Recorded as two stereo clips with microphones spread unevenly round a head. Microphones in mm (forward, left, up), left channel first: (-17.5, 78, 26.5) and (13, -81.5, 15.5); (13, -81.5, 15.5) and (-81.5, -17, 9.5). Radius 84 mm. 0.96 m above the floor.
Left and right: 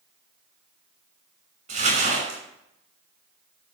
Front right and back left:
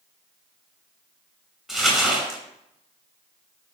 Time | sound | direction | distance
1.7 | crumpling | 125° right | 6 m